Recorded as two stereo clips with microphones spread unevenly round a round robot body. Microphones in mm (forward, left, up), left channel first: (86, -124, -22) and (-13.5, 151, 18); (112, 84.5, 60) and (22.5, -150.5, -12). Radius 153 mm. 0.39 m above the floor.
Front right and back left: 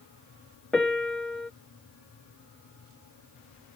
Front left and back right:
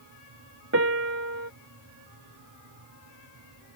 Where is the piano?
160° right.